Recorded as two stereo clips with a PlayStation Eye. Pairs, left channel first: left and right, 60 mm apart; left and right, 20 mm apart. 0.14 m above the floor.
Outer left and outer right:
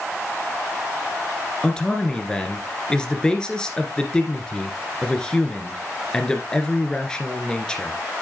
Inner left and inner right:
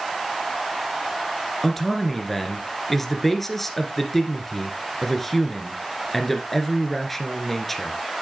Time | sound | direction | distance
1.6 | a man speaking | 15° left (ahead or behind) | 2.0 m